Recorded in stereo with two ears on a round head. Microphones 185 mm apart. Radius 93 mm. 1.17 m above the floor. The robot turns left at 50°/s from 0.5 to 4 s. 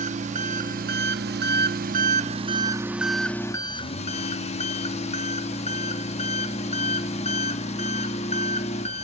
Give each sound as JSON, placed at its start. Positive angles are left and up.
{"t": 0.0, "sound": "an engine running", "azimuth_deg": -45, "distance_m": 0.8}